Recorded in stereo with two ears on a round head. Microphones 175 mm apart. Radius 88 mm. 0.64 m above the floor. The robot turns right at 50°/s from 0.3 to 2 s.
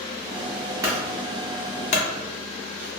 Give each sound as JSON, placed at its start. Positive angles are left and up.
{"t": 0.8, "sound": "a clunk", "side_deg": -20, "distance_m": 0.6}